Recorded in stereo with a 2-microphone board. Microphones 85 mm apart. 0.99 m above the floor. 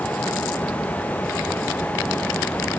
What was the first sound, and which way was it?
Only background noise.